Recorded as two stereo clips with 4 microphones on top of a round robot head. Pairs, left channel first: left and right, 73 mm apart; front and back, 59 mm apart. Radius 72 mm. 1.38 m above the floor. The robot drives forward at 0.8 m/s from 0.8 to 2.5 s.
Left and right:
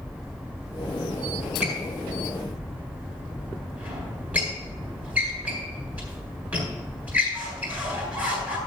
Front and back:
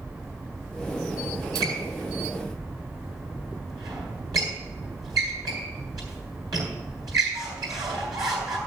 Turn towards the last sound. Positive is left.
turn(degrees=-160)